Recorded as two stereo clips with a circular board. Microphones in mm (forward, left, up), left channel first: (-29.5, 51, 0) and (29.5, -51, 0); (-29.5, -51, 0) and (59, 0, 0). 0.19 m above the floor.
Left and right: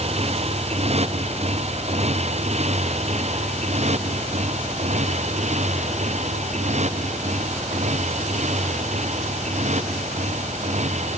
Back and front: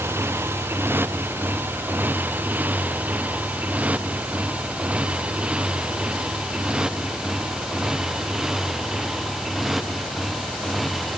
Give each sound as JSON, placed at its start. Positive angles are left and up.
{"t": 0.0, "sound": "a motorcycle", "azimuth_deg": -35}